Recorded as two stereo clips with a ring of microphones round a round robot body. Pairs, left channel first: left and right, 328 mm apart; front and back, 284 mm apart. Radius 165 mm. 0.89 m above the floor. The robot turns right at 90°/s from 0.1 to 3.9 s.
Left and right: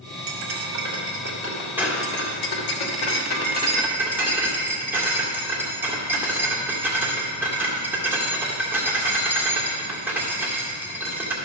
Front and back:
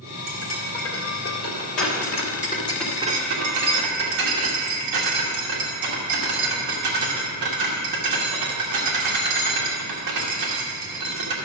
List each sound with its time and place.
0.3 s cutlery clinking: 140° right, 1.7 m; by 11.3 s 175° right, 1.7 m